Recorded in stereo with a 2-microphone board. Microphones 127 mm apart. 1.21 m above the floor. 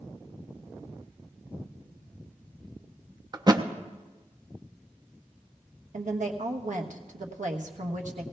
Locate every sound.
3.3 s a thud: 35° right (ahead or behind), 0.6 m
5.9 s a woman speaking: 80° right, 1.2 m